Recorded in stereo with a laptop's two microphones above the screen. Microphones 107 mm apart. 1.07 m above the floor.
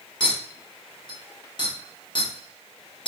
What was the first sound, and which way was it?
A clink, 45° left (ahead or behind).